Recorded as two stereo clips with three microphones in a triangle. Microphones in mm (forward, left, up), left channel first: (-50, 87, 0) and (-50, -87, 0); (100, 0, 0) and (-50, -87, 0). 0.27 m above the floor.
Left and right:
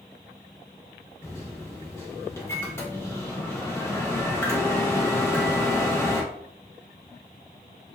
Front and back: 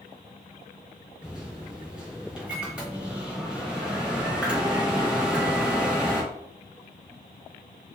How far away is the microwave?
About 0.7 m.